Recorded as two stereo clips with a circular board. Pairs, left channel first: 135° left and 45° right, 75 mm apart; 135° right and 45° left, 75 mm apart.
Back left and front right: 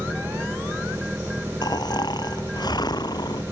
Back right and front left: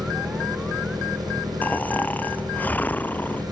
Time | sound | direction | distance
0.0 | an engine running | 20° left | ?
1.6 | snoring | 160° left | ?